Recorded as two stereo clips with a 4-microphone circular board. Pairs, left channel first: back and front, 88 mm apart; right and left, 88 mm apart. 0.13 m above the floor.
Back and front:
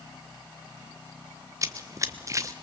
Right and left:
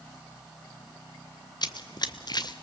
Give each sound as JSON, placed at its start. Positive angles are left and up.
{"t": 1.6, "sound": "running footsteps", "azimuth_deg": -55, "distance_m": 1.0}